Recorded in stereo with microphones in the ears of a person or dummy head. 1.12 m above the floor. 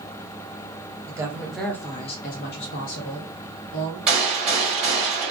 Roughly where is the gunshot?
Centre.